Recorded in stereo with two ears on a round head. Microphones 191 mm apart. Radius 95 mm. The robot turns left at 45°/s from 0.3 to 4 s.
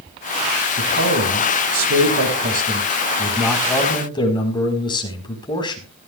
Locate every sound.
0.8 s a man speaking: 55° right, 4.5 m; by 5.9 s 160° left, 4.5 m